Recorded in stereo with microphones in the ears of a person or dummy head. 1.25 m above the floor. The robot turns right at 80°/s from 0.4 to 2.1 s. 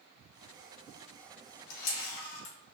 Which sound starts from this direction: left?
A camera shutter, at 1.7 s.